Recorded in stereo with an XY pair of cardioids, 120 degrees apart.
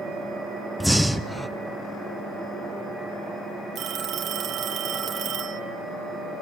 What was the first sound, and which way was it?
Breathing, straight ahead.